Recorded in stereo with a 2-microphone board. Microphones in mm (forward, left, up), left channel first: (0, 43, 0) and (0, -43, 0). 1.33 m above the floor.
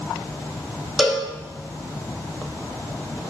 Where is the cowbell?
5° right (ahead or behind), 0.9 m.